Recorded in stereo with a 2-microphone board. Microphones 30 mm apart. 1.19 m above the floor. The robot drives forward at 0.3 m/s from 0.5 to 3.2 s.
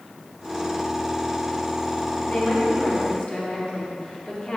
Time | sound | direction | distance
2.3 | a woman speaking | 40° left (ahead or behind) | 2.5 m